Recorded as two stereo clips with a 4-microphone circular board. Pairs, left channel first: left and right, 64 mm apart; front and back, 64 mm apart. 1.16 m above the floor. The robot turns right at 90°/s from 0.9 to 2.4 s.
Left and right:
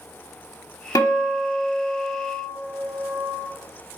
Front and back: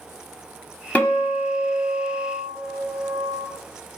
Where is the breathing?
No breathing in this recording.